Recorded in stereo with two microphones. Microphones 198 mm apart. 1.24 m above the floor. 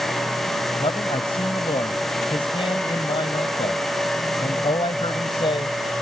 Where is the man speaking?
25° left (ahead or behind).